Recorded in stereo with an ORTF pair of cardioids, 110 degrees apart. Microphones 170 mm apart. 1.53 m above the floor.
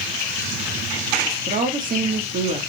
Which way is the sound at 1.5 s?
50° right.